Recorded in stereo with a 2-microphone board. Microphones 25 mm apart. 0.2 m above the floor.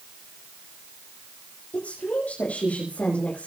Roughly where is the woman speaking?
Left.